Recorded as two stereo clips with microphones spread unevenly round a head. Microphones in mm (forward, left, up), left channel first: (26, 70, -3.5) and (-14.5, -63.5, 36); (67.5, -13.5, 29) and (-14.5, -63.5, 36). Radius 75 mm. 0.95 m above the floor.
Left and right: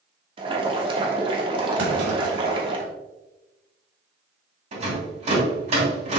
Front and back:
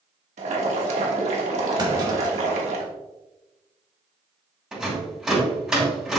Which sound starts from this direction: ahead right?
A rattle, at 4.7 s.